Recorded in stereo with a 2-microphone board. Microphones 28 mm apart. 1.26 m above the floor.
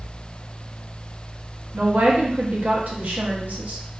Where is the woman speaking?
60° right (ahead or behind), 0.7 m.